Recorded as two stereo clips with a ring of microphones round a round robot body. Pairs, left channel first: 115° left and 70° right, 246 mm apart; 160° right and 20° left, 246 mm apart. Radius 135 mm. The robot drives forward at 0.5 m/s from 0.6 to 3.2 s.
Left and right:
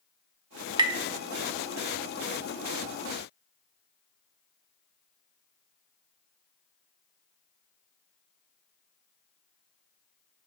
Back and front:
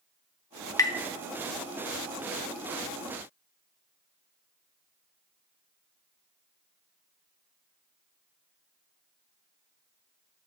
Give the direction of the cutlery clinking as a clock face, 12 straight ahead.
I don't hear cutlery clinking.